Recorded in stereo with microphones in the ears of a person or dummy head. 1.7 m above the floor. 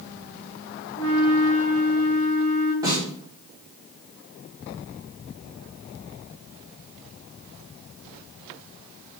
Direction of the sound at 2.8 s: 15° right (ahead or behind).